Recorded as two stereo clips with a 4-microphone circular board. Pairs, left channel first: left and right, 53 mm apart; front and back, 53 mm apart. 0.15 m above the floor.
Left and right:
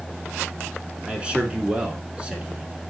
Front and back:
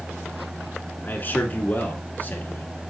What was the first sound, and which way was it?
A man speaking, 30° right.